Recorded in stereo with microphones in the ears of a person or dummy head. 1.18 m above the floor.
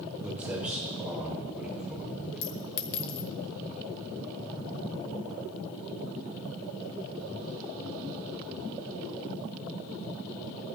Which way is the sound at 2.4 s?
55° left (ahead or behind).